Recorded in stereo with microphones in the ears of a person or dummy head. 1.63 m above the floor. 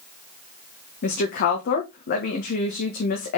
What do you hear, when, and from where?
1.0 s a woman speaking: 45° left (ahead or behind), 1.4 m